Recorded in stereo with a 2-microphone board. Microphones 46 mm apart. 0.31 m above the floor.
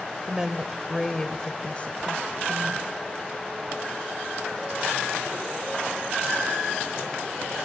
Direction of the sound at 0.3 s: 20° right (ahead or behind).